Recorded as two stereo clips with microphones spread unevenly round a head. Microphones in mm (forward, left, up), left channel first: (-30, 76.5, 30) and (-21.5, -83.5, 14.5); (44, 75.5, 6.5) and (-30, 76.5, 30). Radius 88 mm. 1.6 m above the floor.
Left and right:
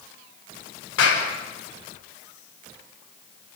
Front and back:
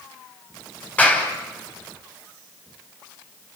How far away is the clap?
About 7 m.